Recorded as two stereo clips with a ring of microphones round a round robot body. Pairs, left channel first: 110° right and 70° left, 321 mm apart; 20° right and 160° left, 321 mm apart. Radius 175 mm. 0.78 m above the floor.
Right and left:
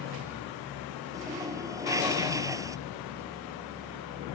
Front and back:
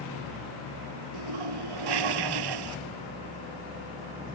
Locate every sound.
1.1 s a toilet flushing: 150° left